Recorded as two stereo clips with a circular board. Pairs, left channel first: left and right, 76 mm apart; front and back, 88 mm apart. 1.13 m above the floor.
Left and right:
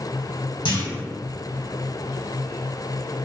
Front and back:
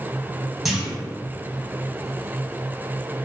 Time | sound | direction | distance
0.7 | a clunk | 90° left | 1.2 m